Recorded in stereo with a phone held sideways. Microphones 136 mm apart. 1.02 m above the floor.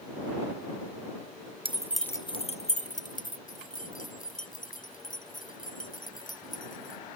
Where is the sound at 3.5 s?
70° left (ahead or behind).